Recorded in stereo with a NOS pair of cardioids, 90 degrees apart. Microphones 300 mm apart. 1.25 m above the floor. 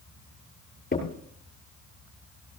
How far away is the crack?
About 7 m.